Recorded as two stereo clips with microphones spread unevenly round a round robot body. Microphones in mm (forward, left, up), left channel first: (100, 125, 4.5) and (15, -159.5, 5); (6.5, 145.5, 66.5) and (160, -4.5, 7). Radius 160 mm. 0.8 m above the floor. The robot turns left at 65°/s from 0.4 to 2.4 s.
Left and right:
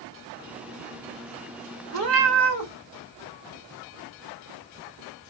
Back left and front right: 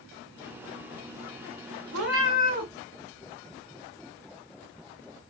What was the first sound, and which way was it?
A cat meowing, 70° right.